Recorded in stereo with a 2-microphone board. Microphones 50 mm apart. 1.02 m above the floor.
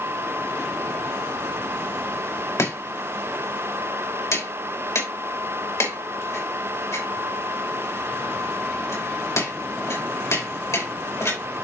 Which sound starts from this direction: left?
Chopping, at 2.6 s.